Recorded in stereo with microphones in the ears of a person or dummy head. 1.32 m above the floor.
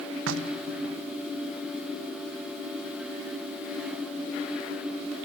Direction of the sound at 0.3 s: 75° right (ahead or behind).